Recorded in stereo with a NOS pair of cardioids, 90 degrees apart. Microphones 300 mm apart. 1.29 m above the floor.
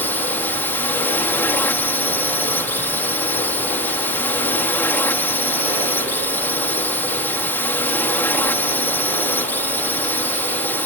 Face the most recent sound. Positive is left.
turn(degrees=5)